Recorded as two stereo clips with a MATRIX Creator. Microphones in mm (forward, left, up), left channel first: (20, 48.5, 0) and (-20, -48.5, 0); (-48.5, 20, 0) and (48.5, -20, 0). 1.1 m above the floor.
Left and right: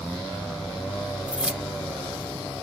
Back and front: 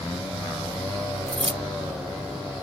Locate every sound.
1.3 s keys jangling: 35° right